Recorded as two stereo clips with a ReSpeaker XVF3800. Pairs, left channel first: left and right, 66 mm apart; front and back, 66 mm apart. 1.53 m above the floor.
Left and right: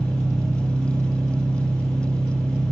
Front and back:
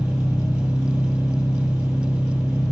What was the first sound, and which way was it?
An engine running, 135° left.